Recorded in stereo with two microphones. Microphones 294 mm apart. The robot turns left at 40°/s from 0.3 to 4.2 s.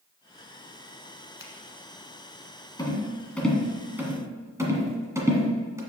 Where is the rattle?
15° left (ahead or behind), 1.5 m; by 5.8 s 10° right (ahead or behind), 1.5 m.